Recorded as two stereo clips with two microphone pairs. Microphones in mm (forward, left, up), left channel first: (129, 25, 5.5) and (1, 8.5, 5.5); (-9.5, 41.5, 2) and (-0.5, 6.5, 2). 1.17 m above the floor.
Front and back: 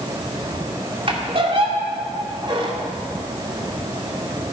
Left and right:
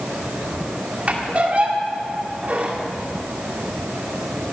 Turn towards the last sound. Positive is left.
turn(degrees=-125)